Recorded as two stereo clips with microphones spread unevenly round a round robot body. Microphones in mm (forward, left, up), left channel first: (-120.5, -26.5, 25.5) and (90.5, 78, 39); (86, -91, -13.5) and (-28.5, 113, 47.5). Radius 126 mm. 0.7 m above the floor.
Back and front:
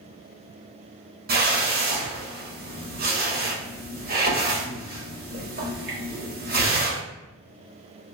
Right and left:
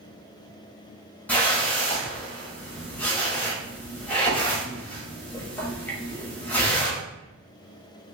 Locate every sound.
1.3 s a whoosh: straight ahead, 1.0 m